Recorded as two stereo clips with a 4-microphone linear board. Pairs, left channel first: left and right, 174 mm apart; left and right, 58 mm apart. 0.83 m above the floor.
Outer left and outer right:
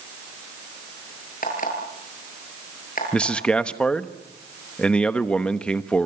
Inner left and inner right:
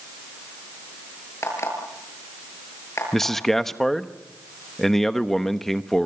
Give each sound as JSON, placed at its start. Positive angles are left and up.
{"t": 1.4, "sound": "an alarm clock", "side_deg": 55, "distance_m": 8.0}
{"t": 3.1, "sound": "a man speaking", "side_deg": 5, "distance_m": 1.0}